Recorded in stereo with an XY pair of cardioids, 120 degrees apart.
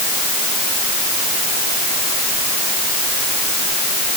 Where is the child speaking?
No child speaking in this recording.